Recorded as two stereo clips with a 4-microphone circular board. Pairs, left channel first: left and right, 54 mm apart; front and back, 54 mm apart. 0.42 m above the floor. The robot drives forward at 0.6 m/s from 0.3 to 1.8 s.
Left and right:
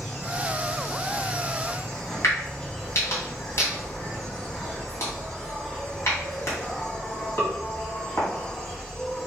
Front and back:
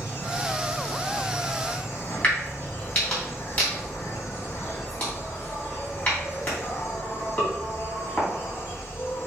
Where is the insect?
20° left, 3.5 m; by 9.3 s 25° left, 2.5 m.